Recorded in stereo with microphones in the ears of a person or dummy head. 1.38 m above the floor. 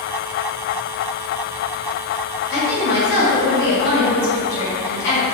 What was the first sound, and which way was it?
A woman speaking, 60° left (ahead or behind).